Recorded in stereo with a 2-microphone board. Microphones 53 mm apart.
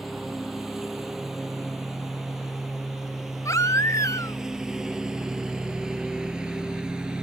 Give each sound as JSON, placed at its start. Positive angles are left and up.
{"t": 0.0, "sound": "a lawn mower", "side_deg": -5}
{"t": 3.5, "sound": "a baby crying", "side_deg": 75}